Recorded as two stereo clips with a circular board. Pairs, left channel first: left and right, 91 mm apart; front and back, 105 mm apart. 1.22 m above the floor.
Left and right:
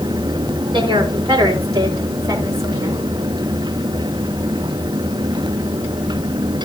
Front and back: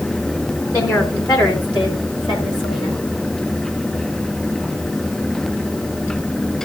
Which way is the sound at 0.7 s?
55° right.